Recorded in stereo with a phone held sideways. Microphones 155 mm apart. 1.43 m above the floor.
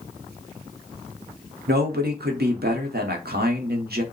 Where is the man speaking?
85° right, 0.8 m.